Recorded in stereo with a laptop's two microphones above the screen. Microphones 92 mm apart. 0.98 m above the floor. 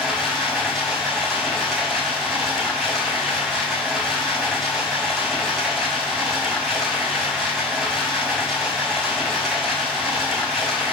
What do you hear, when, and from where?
0.0 s running water: centre (ahead or behind), 4 m